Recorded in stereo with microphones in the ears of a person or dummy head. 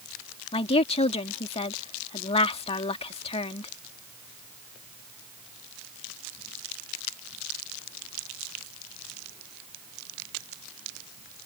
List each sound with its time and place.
0.5 s a woman speaking: 30° left (ahead or behind)